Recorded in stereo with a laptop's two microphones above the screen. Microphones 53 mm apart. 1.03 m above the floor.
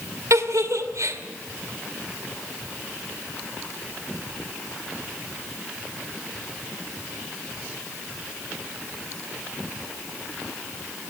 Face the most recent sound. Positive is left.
turn(degrees=-80)